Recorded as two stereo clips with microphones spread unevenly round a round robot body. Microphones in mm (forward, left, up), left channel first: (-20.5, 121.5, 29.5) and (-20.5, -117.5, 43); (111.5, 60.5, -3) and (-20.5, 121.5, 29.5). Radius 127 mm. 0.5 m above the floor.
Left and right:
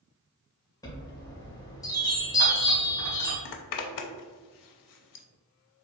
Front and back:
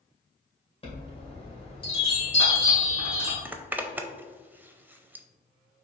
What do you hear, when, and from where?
0.8 s a chime: 15° left, 2.0 m
3.5 s a zipper: 80° left, 0.6 m